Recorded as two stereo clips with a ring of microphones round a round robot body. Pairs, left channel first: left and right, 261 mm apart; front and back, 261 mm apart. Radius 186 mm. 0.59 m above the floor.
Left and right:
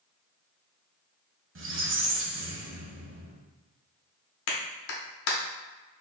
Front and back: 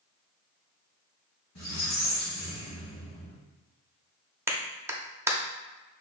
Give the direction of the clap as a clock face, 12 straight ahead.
9 o'clock.